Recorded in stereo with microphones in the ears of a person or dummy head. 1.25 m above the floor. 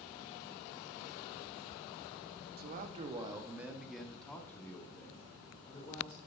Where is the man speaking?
50° right (ahead or behind), 0.6 m; by 6.2 s 30° left (ahead or behind), 1.9 m.